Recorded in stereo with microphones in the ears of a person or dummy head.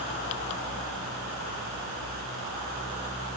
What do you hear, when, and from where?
Only background noise.